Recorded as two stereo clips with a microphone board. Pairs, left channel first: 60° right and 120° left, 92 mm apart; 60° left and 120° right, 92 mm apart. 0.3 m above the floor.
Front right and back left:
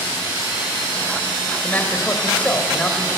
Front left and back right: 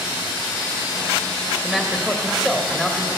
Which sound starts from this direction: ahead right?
A man speaking, at 1.6 s.